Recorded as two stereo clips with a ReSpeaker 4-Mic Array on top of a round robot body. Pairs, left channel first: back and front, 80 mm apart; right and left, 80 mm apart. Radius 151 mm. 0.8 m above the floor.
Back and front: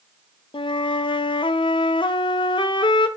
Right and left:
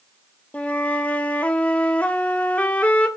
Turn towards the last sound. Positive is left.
turn(degrees=-165)